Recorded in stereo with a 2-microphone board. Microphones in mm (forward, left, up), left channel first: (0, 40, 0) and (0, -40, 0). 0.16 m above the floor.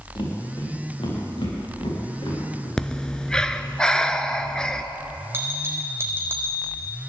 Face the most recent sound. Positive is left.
turn(degrees=-30)  # may be behind; listen again after turning